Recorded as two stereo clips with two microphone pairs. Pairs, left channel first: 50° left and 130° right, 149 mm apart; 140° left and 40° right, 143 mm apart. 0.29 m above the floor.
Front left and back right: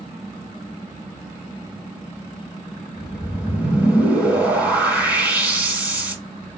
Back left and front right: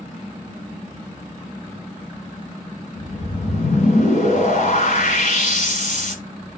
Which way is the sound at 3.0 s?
150° left.